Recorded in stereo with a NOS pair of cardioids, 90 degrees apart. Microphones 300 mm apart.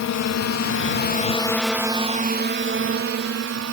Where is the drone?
65° left; by 3.8 s 55° right.